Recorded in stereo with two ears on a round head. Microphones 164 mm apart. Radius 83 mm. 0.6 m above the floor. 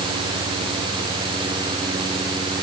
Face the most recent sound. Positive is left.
No sound to turn to.